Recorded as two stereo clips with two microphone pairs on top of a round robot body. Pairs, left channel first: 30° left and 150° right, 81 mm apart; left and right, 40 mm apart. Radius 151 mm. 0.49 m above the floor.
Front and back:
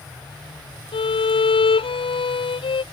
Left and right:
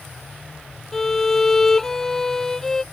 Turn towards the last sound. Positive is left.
turn(degrees=10)